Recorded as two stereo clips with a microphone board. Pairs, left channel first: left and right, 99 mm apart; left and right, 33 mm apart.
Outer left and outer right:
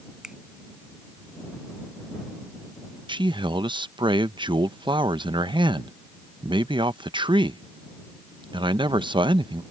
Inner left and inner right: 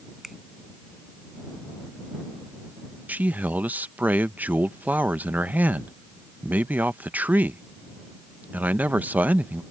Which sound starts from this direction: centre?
A finger snap, at 0.2 s.